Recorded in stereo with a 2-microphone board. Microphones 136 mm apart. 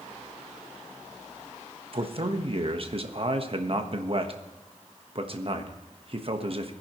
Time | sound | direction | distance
1.9 | a man speaking | 45° right (ahead or behind) | 1.3 m